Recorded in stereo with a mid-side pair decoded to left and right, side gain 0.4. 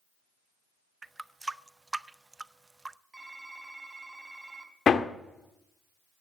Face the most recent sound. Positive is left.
turn(degrees=55)